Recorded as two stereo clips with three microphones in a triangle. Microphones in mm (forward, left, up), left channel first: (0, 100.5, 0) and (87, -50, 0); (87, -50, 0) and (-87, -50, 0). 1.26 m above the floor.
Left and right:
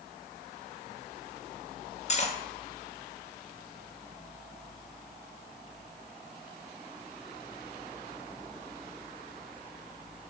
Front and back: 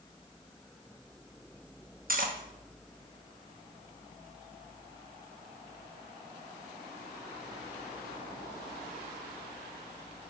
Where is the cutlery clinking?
160° left, 0.9 m.